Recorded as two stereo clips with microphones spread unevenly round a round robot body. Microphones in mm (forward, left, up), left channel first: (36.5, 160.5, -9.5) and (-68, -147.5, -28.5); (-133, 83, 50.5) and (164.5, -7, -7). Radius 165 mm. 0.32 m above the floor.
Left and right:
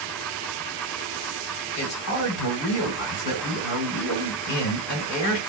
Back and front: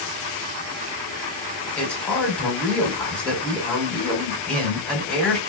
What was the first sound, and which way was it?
A man speaking, 65° left.